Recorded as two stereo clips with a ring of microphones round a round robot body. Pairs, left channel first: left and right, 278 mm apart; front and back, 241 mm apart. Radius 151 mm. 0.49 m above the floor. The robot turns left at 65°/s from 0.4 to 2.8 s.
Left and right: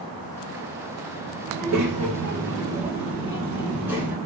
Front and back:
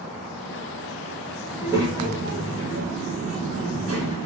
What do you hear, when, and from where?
1.5 s a child speaking: 90° right, 2.0 m; by 4.2 s 170° right, 2.0 m